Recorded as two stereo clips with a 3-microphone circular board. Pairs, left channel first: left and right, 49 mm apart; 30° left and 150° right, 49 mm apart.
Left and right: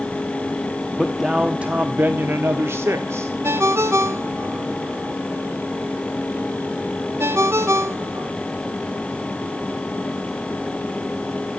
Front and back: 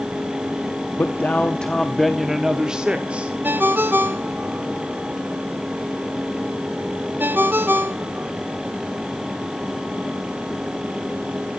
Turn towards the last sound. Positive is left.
turn(degrees=-105)